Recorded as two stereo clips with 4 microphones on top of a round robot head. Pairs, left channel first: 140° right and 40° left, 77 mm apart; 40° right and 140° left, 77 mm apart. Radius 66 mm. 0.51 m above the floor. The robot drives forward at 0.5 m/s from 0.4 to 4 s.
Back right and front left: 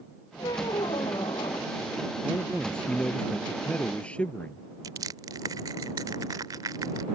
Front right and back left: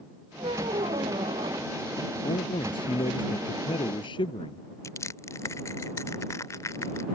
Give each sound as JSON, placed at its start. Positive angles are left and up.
{"t": 0.4, "sound": "a squeak", "azimuth_deg": 175}
{"t": 2.2, "sound": "a man speaking", "azimuth_deg": -60}
{"t": 4.8, "sound": "crushing", "azimuth_deg": 5}